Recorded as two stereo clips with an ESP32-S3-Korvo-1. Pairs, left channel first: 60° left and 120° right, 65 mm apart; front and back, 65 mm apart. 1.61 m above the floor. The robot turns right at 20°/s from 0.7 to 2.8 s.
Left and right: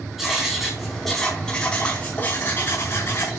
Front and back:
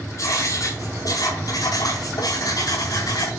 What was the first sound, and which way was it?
Writing, 35° right.